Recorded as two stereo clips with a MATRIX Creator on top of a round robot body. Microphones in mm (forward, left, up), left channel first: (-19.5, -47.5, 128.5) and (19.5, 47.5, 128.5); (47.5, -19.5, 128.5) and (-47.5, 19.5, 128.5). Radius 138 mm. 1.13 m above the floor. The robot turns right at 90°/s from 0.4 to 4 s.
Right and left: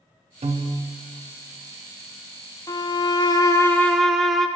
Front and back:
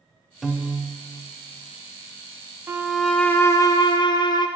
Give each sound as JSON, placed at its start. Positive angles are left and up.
{"t": 0.4, "sound": "a piano", "azimuth_deg": 70, "distance_m": 0.6}
{"t": 2.7, "sound": "a violin", "azimuth_deg": -145, "distance_m": 0.8}